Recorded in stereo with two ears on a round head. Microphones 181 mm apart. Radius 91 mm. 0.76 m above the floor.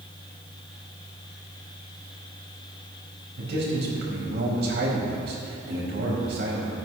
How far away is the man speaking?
About 3.5 m.